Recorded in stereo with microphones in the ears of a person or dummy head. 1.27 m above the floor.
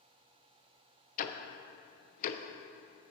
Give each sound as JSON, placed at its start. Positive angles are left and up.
{"t": 1.2, "sound": "ticking", "side_deg": 45, "distance_m": 0.6}